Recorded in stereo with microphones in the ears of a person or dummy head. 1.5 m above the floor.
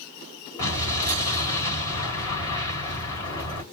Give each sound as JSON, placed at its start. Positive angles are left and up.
{"t": 0.6, "sound": "an explosion", "side_deg": 20, "distance_m": 3.5}